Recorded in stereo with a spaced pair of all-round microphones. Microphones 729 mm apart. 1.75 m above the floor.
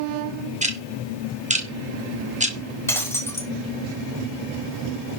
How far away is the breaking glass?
About 3 m.